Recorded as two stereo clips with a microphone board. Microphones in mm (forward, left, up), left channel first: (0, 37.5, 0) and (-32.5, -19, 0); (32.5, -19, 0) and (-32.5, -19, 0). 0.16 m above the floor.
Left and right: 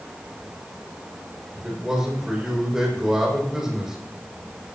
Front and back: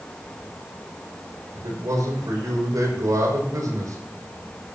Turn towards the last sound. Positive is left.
turn(degrees=155)